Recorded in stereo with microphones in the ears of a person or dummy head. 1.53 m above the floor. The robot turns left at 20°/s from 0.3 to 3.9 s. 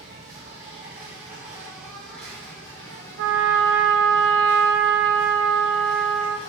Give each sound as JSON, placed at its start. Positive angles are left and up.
{"t": 0.0, "sound": "an insect", "azimuth_deg": -145, "distance_m": 0.9}
{"t": 3.2, "sound": "a trumpet", "side_deg": -75, "distance_m": 0.5}